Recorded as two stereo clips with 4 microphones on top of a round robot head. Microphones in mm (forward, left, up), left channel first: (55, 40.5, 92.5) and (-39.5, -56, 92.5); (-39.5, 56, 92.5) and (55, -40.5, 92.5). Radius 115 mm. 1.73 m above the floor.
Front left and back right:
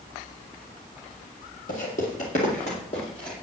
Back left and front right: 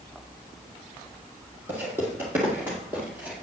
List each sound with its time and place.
1.7 s footsteps: 25° left, 2.5 m; by 3.3 s 20° left, 1.8 m